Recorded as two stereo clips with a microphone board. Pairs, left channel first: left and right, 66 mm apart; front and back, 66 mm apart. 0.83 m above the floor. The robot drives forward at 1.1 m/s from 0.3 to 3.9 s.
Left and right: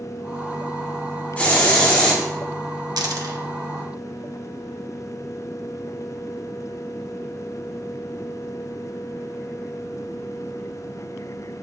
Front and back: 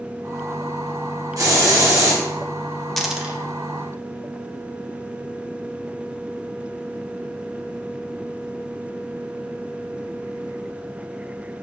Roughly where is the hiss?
Behind left.